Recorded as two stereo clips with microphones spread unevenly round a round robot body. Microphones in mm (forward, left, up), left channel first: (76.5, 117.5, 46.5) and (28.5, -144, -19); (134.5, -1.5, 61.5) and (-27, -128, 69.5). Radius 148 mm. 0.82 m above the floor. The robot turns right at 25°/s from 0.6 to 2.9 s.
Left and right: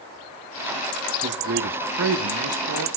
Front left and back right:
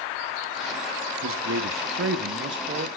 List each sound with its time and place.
1.2 s a man speaking: 145° right, 1.4 m; by 2.9 s 105° right, 1.4 m